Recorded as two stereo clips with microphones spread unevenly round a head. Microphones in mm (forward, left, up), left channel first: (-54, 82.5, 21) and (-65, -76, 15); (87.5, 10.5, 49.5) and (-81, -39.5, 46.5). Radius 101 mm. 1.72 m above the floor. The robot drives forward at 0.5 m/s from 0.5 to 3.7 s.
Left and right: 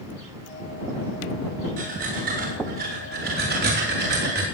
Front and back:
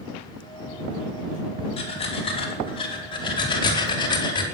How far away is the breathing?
About 5 m.